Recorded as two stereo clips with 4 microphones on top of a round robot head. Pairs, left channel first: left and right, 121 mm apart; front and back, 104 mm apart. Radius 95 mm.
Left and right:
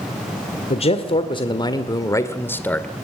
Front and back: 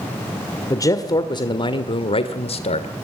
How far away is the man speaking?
About 1.9 m.